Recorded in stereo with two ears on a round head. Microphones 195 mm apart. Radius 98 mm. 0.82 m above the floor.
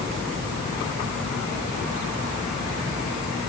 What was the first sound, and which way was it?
Only background noise.